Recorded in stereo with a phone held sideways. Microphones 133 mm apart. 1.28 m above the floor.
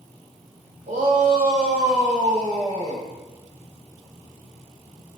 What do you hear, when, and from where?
0.9 s a shout: 80° right, 5.5 m; by 3.1 s 90° right, 6.5 m